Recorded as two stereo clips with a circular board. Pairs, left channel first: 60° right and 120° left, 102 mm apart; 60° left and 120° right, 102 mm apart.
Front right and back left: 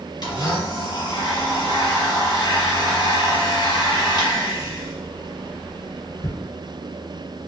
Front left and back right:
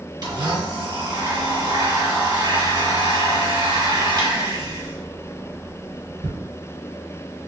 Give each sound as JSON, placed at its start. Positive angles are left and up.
{"t": 0.2, "sound": "a blender", "azimuth_deg": -90, "distance_m": 2.0}